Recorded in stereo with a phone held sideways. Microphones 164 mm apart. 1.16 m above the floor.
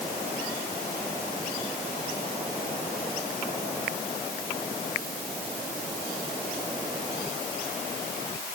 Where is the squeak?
I don't hear a squeak.